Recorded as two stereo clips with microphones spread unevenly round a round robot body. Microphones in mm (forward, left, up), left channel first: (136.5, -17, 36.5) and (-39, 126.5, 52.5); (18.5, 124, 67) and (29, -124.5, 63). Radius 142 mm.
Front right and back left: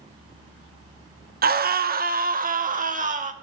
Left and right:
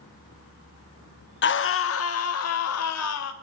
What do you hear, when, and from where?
1.4 s a scream: 105° left, 0.7 m; by 3.3 s 85° left, 1.7 m